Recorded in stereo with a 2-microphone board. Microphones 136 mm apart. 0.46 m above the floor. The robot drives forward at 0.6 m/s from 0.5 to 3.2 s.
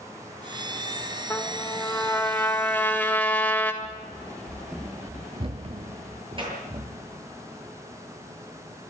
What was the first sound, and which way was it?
A trumpet, 20° left (ahead or behind).